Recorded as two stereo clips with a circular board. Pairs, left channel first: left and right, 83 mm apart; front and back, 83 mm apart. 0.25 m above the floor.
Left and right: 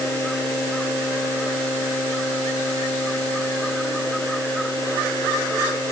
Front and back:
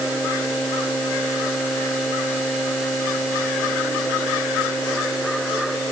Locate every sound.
Only background noise.